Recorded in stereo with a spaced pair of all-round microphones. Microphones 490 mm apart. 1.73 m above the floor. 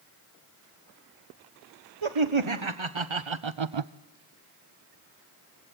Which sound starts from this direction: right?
Laughter, at 2.0 s.